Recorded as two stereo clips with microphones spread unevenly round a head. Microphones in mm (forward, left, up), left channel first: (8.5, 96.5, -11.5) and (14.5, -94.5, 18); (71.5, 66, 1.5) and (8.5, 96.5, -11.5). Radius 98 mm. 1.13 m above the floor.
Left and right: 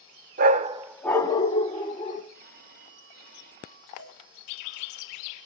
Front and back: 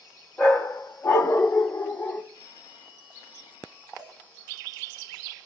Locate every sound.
0.4 s a dog barking: 90° right, 0.7 m; by 2.2 s 35° left, 1.9 m
2.3 s a phone ringing: 45° right, 3 m
4.0 s a cowbell: 85° right, 8.5 m